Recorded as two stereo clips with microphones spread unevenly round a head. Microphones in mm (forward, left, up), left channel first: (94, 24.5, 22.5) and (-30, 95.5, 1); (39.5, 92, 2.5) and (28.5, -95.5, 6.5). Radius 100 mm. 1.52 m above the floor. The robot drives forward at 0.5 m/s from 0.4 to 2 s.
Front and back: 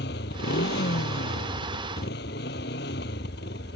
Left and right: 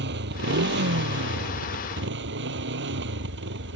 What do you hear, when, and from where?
0.0 s a motorcycle: 65° right